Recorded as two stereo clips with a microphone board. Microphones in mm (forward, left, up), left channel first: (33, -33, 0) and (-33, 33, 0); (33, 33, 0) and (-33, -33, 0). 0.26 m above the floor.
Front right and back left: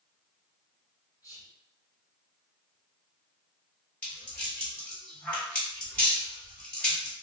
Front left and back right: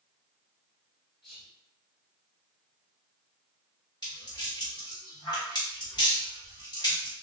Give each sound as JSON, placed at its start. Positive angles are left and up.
{"t": 1.2, "sound": "whispering", "azimuth_deg": -35, "distance_m": 1.9}
{"t": 4.0, "sound": "a rattle", "azimuth_deg": 25, "distance_m": 1.9}